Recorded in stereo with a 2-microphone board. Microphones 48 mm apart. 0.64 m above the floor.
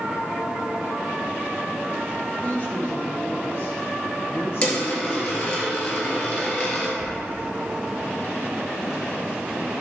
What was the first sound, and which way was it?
A woman speaking, 30° left (ahead or behind).